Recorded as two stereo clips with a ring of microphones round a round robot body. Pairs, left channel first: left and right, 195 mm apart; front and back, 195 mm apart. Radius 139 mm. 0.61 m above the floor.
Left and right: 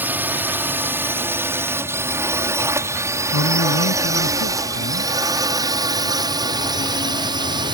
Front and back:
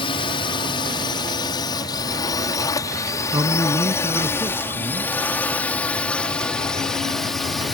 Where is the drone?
20° right; by 7.7 s 90° right.